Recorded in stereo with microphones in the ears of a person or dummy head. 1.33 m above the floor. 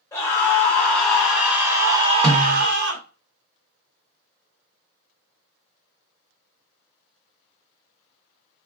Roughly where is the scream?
Centre.